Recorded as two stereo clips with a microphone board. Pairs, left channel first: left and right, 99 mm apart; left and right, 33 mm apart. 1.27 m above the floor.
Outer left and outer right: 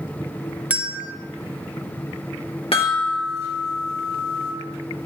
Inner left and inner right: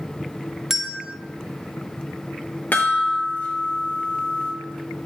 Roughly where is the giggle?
I don't hear a giggle.